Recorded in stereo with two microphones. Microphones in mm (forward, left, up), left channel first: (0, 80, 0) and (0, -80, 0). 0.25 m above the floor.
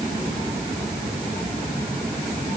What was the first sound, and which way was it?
Only background noise.